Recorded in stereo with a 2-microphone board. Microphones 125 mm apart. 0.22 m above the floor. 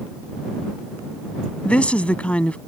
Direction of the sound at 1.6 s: 10° left (ahead or behind).